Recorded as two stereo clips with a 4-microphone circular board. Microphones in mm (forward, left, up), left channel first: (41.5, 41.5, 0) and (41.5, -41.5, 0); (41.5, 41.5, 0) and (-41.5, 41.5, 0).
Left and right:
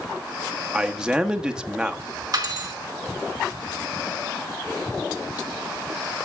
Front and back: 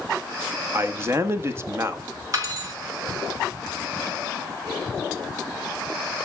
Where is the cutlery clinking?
135° right, 4 m.